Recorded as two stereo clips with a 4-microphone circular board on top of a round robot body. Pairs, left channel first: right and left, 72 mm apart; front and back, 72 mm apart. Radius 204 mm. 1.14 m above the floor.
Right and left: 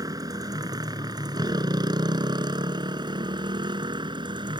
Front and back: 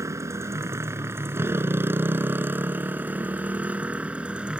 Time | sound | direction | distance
0.0 | a motorcycle | 130° left | ?